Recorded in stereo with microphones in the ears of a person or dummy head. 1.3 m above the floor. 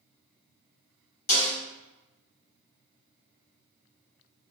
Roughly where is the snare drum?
Left.